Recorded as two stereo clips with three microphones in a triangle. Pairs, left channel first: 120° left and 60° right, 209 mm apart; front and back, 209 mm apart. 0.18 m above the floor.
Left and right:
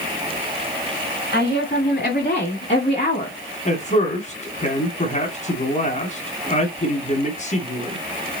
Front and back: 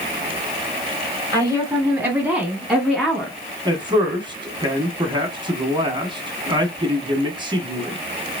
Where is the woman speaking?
110° left, 2.5 m; by 3.4 s 70° left, 1.9 m.